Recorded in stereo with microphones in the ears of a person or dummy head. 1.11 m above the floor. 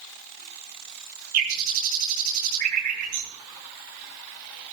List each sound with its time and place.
1.3 s a bird: 45° right (ahead or behind), 6 m